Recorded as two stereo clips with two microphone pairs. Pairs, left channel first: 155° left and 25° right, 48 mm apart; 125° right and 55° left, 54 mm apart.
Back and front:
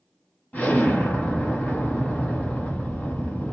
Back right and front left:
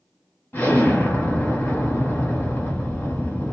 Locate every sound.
0.5 s an explosion: 165° right, 1.2 m